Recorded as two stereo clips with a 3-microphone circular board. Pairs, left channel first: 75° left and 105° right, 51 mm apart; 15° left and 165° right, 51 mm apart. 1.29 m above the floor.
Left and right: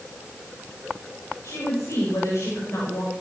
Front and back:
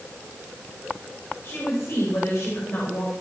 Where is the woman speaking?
50° left, 7 m.